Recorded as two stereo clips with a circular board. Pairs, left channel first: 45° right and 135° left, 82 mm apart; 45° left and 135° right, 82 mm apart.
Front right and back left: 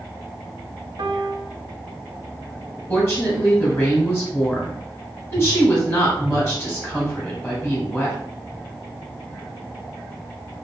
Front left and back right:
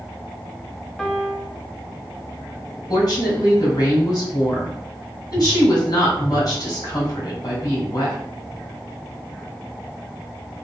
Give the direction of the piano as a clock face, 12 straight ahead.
8 o'clock.